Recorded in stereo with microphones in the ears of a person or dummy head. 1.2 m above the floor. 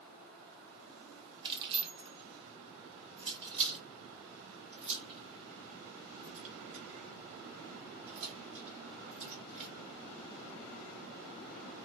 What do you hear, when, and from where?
1.4 s keys jangling: 30° right (ahead or behind), 1.1 m; by 9.7 s 45° right (ahead or behind), 5.5 m